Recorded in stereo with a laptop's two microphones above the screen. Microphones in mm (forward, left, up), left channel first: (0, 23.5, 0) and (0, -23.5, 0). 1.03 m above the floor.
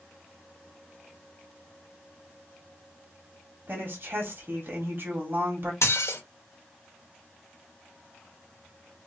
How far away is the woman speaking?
About 1.7 m.